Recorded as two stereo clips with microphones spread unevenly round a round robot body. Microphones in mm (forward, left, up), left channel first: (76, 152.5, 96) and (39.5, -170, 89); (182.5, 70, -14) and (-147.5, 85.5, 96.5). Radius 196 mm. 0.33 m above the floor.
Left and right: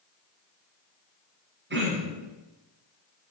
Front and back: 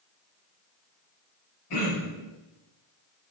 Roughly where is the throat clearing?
Ahead right.